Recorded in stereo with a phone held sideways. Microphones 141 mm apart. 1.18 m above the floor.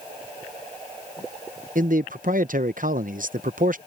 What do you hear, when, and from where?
1.8 s a man speaking: 70° right (ahead or behind)